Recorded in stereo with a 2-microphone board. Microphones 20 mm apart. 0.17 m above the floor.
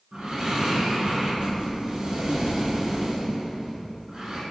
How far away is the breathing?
About 0.8 m.